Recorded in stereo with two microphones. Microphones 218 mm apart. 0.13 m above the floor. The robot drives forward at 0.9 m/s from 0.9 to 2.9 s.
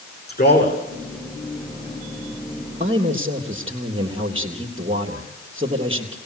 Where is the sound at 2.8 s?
25° right (ahead or behind), 3.5 m.